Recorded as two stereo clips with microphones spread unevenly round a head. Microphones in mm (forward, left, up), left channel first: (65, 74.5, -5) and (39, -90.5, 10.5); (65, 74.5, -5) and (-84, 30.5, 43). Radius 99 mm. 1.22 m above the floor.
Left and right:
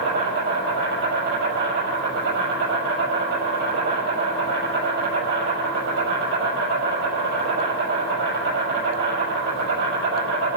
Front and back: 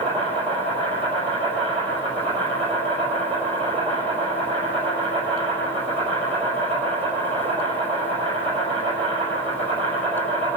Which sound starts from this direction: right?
An insect, at 0.0 s.